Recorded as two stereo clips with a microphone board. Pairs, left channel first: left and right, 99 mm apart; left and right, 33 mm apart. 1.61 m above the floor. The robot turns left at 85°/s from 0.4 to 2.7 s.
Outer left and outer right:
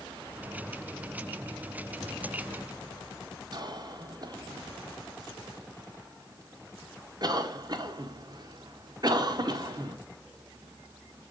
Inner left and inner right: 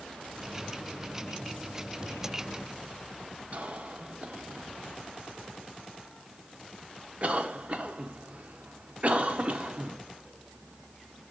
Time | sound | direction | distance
3.5 | a cough | 45° right (ahead or behind) | 0.7 m